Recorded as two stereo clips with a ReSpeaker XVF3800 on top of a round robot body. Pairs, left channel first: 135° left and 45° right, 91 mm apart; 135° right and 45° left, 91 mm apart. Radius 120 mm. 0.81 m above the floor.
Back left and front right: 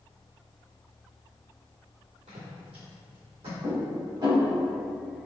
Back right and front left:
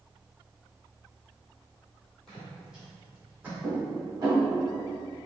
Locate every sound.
2.3 s footsteps: 50° right, 1.3 m; by 3.5 s 30° right, 2.5 m
3.6 s dishes clattering: 5° right, 1.8 m